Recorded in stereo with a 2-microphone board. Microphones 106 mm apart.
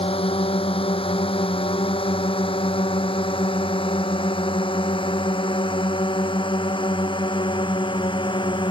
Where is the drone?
60° left (ahead or behind); by 8.7 s 50° left (ahead or behind).